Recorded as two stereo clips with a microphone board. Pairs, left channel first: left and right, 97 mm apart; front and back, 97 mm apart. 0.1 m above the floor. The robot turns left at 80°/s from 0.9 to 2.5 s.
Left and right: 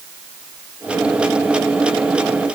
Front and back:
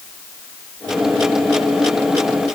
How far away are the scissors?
No scissors in this recording.